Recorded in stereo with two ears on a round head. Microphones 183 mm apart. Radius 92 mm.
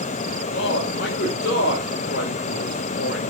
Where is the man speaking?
55° left (ahead or behind), 2.5 m.